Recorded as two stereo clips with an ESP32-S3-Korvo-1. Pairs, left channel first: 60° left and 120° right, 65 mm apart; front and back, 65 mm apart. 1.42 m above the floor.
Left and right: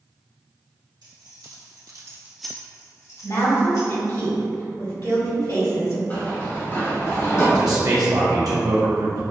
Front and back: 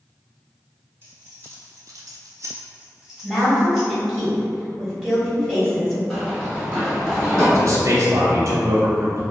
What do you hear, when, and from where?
1.0 s keys jangling: 125° right, 1.5 m; by 4.0 s 85° left, 1.8 m
3.2 s a woman speaking: 80° left, 1.9 m
6.1 s running footsteps: 80° left, 1.6 m; by 7.5 s 75° left, 2.5 m
7.5 s a man speaking: 140° right, 0.8 m